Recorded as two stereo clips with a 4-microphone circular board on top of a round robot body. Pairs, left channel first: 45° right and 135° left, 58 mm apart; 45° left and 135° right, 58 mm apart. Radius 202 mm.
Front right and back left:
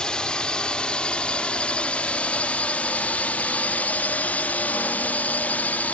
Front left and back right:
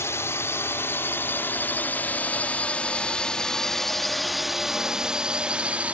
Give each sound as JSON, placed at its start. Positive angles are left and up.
{"t": 0.0, "sound": "a drone", "azimuth_deg": 25}